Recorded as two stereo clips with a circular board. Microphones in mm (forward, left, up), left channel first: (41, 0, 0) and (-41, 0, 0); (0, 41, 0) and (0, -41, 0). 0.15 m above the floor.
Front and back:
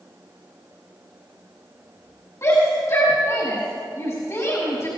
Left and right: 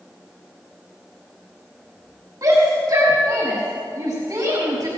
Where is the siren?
I don't hear a siren.